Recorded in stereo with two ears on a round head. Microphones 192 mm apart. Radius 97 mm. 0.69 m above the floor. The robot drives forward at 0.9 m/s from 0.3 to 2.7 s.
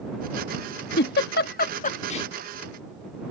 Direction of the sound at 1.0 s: 50° left (ahead or behind).